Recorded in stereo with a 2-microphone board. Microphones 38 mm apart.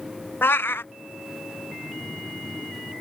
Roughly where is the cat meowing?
Left.